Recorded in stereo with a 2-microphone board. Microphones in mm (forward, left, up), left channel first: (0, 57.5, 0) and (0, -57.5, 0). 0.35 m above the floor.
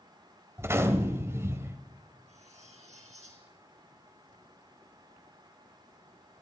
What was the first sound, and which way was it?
A gunshot, 25° right (ahead or behind).